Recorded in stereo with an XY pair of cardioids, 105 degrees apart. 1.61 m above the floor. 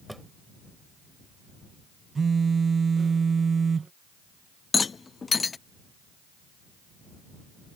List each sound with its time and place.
0.1 s a drawer: 5° right
2.1 s a phone buzzing: 35° right
4.7 s a rattle: 30° left